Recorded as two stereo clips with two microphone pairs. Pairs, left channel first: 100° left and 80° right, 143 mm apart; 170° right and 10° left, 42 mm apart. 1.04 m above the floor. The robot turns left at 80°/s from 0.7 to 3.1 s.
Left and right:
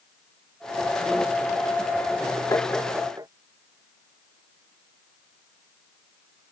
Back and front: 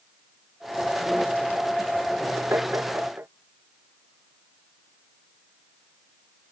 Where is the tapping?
30° left; by 3.3 s 15° right.